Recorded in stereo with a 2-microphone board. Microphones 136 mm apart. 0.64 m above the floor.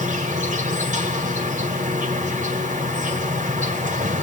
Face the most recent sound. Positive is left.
turn(degrees=-70)  # may be behind; listen again after turning